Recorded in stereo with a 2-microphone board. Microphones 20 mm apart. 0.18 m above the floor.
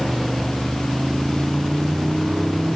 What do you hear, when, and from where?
0.0 s a motorcycle: 25° right (ahead or behind)